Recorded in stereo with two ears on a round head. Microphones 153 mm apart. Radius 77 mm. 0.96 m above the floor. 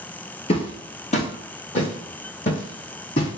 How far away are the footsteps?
About 1.3 m.